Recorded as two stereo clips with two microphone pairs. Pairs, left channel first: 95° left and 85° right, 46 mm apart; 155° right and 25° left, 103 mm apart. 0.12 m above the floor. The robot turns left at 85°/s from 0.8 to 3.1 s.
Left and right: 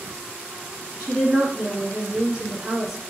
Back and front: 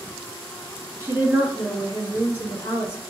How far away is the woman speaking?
About 1.2 m.